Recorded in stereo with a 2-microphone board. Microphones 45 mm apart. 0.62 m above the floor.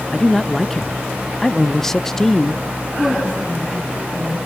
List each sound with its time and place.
0.1 s a man speaking: 10° left (ahead or behind), 0.5 m
3.0 s a woman speaking: 15° left (ahead or behind), 7 m